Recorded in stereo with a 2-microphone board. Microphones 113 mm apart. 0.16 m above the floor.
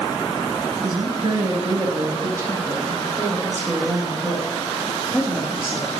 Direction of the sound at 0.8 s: 40° right (ahead or behind).